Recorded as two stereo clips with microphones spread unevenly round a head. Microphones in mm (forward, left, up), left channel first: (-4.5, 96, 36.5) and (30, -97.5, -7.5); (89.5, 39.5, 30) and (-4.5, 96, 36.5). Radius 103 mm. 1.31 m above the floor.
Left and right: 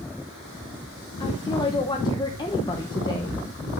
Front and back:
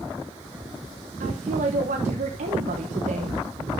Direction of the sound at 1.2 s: 170° left.